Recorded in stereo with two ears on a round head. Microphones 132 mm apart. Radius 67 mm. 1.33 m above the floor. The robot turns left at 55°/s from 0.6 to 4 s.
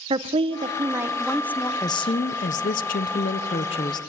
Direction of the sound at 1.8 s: 150° left.